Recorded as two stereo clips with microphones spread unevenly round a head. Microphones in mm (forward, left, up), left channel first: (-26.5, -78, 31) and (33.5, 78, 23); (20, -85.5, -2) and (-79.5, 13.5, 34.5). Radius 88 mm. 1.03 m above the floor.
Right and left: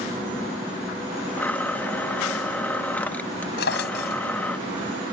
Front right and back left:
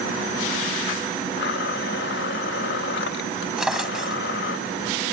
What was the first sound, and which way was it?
A blender, 30° right.